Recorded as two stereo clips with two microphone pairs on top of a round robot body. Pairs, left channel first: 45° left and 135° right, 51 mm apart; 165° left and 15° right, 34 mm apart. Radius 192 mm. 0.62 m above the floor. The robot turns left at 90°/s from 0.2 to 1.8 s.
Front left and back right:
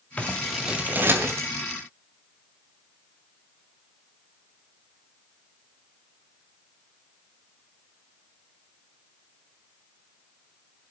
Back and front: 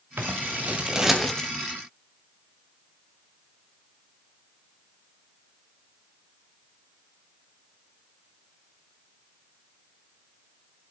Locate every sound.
0.2 s scissors: 15° right, 2.5 m; by 1.5 s 130° right, 2.5 m